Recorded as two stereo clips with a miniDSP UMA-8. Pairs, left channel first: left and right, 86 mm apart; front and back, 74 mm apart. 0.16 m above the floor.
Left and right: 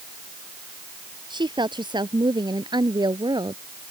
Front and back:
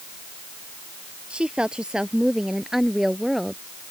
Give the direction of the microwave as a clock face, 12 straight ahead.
No microwave in this recording.